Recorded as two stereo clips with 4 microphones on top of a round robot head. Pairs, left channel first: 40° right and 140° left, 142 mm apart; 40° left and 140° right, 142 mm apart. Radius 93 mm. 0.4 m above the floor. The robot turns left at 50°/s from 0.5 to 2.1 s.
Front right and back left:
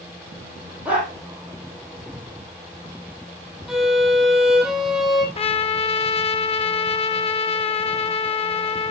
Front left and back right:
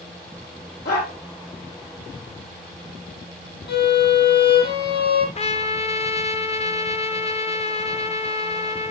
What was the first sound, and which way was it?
A dog barking, 60° left.